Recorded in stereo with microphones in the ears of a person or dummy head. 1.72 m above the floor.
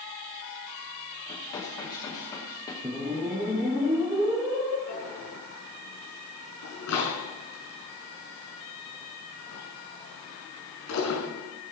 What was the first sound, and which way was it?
Dishes clattering, 20° left (ahead or behind).